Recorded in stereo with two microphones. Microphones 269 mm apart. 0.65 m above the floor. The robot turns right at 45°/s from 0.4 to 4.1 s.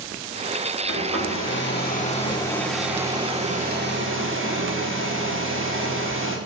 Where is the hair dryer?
95° left, 1.9 m; by 6.4 s 120° right, 1.9 m.